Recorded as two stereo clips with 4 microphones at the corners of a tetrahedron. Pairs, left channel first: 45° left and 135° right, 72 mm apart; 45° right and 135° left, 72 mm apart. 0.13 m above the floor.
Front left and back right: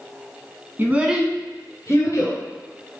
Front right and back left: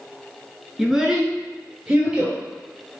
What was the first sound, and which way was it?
A child speaking, 140° right.